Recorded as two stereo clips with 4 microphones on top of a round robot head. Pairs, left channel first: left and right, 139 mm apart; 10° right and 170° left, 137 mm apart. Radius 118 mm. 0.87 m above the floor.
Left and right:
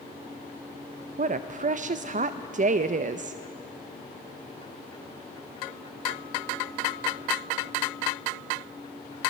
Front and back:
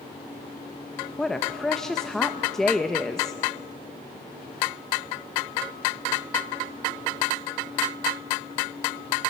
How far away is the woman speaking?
About 0.6 m.